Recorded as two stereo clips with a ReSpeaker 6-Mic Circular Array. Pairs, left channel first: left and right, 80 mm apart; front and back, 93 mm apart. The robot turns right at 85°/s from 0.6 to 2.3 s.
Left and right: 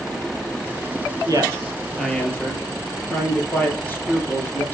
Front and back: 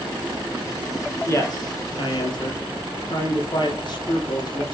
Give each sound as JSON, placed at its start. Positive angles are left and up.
{"t": 1.3, "sound": "a man speaking", "azimuth_deg": -65, "distance_m": 3.0}